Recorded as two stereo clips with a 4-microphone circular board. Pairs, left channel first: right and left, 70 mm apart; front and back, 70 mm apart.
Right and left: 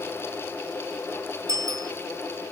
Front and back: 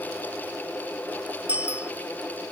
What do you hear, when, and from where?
1.5 s a bicycle bell: 110° left